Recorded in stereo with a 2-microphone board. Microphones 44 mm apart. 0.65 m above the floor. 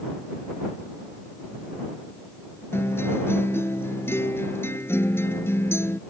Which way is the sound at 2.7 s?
85° left.